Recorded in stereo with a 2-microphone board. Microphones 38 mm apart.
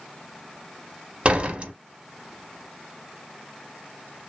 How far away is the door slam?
About 0.8 m.